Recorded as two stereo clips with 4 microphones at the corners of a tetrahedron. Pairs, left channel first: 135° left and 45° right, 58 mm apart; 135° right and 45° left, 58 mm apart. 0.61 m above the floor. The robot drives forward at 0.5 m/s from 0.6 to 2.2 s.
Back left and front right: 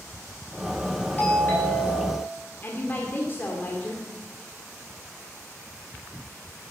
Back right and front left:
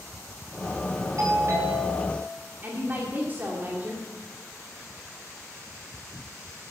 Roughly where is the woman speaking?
Left.